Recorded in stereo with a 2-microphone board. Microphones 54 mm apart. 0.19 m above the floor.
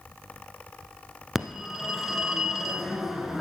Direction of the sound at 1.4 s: 5° right (ahead or behind).